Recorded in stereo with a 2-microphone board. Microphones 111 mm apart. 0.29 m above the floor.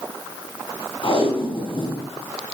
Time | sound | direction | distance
1.0 | tape being pulled | 50° left (ahead or behind) | 3 m